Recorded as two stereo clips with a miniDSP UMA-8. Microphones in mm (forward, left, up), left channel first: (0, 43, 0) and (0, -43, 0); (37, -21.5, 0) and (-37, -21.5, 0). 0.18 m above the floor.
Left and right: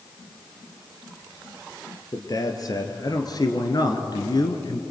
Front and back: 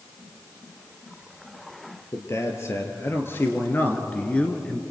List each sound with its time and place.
2.1 s a man speaking: 45° left, 3.5 m; by 4.8 s 80° left, 1.9 m